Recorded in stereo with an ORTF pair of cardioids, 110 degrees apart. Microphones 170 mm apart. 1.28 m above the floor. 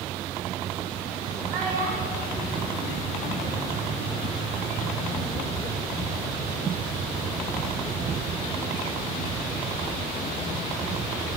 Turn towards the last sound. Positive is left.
turn(degrees=-55)